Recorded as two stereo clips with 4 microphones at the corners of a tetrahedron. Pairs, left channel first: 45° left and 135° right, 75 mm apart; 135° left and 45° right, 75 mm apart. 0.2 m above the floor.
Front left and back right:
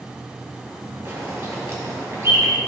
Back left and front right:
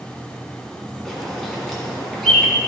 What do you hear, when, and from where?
1.1 s a bird: 140° right, 2.0 m